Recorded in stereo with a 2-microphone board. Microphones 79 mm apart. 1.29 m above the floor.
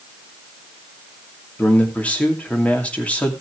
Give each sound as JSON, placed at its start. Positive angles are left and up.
{"t": 1.6, "sound": "a man speaking", "side_deg": 15, "distance_m": 2.5}